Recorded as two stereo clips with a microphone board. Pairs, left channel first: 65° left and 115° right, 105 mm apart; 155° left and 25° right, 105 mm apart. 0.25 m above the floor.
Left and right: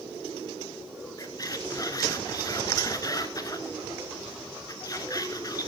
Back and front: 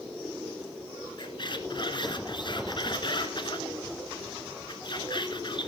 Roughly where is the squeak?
Behind left.